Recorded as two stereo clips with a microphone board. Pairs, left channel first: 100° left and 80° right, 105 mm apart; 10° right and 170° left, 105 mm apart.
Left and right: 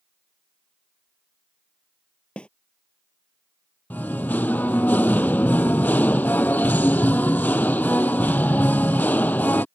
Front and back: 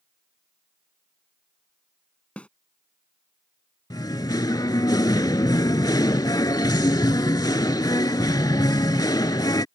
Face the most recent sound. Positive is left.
turn(degrees=30)